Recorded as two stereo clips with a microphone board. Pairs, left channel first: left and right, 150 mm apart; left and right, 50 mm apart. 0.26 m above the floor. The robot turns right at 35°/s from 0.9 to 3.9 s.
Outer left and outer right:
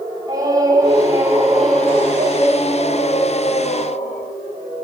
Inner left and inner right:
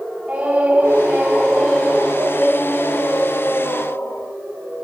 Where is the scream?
25° right, 6 m; by 4.3 s 80° left, 6 m.